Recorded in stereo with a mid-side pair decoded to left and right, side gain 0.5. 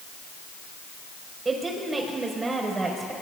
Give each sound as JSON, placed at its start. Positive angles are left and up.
{"t": 1.4, "sound": "a woman speaking", "azimuth_deg": -30, "distance_m": 5.0}